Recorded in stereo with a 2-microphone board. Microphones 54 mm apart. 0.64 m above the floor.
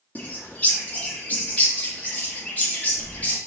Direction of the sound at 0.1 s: 25° left (ahead or behind).